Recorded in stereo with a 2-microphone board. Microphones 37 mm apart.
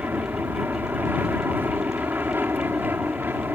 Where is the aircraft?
65° right (ahead or behind).